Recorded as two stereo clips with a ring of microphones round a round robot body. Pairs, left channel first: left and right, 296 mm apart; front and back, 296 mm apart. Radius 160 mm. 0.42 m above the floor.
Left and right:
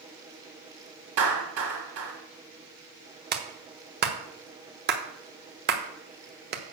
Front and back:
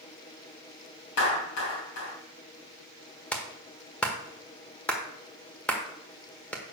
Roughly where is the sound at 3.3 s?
Right.